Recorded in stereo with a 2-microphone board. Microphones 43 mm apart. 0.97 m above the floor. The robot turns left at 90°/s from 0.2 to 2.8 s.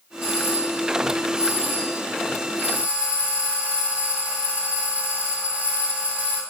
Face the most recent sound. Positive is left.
turn(degrees=-145)